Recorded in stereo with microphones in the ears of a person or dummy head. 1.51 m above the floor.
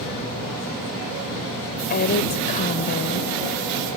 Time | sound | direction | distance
1.9 | a woman speaking | 45° left (ahead or behind) | ?